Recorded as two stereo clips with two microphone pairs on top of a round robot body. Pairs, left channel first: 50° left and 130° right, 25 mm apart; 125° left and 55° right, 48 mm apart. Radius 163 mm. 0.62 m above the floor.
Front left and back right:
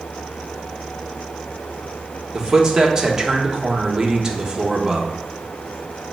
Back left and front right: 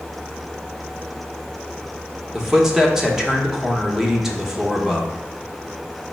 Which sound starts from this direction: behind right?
A man speaking, at 2.3 s.